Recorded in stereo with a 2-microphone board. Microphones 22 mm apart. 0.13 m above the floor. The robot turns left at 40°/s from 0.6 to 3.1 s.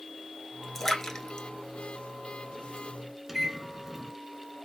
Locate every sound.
0.8 s a splash: 10° left (ahead or behind), 0.9 m; by 2.9 s 55° left (ahead or behind), 0.9 m
3.3 s a microwave: 10° right (ahead or behind), 0.9 m